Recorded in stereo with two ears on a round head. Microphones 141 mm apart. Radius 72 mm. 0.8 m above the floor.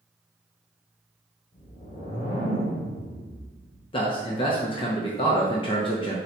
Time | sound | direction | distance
1.5 | a whoosh | 60° left (ahead or behind) | 1.5 m
3.9 | a man speaking | 30° left (ahead or behind) | 0.6 m